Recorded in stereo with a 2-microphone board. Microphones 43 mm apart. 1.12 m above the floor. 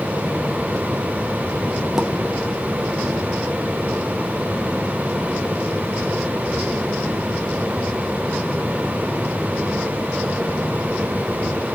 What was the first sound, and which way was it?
A pop, 10° right (ahead or behind).